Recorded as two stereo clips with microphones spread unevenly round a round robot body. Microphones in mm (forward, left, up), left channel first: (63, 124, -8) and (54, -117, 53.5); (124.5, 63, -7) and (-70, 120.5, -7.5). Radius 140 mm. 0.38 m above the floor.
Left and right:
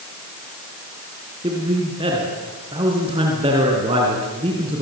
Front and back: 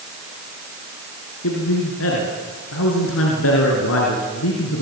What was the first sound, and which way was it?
A man speaking, 20° right.